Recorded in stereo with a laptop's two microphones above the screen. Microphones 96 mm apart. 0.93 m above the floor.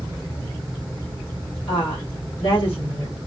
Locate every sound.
1.7 s a woman speaking: 75° left (ahead or behind), 2 m